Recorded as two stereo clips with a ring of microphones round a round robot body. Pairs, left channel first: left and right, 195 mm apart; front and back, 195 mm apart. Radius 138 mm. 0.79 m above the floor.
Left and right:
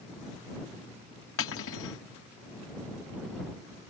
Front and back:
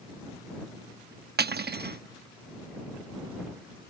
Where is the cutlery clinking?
135° left.